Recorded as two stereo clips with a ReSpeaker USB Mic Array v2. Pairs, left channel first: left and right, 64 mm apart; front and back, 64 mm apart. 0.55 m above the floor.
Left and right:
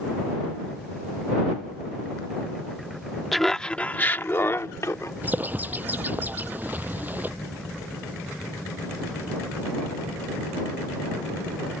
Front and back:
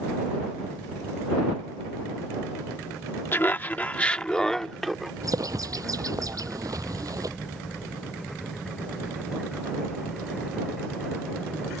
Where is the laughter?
Straight ahead; by 5.1 s 90° left.